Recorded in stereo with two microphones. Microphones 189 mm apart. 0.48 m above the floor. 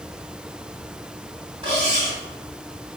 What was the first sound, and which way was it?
Cutlery clinking, 30° right (ahead or behind).